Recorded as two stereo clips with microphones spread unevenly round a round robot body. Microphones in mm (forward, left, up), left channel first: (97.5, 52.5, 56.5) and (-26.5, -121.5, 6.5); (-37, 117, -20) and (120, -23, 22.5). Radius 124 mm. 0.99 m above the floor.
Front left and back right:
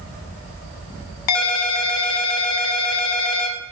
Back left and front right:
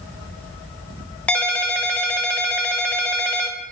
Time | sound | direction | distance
1.3 | a ringtone | 55° left | 0.5 m